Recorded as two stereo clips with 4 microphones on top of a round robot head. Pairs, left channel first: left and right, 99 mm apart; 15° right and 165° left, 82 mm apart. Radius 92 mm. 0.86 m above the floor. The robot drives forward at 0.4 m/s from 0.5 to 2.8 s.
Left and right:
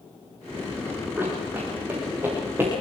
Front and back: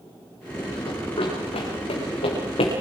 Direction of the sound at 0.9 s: 15° right.